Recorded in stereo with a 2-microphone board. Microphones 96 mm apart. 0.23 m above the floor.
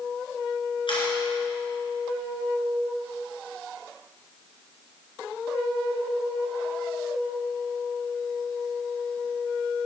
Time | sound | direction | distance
0.9 | a camera shutter | 65° left (ahead or behind) | 3 m